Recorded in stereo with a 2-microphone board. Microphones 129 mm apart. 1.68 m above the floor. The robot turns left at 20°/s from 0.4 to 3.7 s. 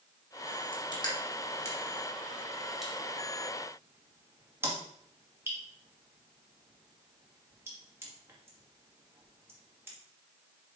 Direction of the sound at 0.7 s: 40° left (ahead or behind).